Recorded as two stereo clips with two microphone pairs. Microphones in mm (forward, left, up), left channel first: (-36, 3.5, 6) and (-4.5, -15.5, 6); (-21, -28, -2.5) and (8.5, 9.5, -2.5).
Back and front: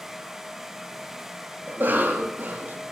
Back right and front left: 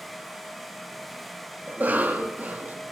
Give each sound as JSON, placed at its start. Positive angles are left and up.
{"t": 1.7, "sound": "a cough", "azimuth_deg": -5, "distance_m": 1.1}